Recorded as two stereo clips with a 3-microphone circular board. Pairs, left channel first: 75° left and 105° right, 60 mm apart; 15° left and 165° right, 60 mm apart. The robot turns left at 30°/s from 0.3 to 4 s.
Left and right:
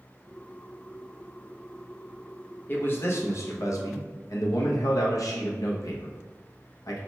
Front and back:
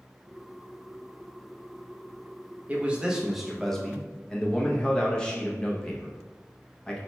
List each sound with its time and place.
2.7 s a man speaking: 130° left, 0.6 m; by 7.0 s 90° left, 0.6 m